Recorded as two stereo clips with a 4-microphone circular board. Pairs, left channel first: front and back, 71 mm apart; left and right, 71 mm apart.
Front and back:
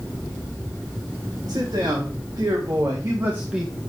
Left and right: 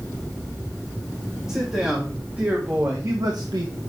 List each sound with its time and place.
1.5 s a man speaking: 170° right, 3 m; by 3.7 s 95° right, 1.3 m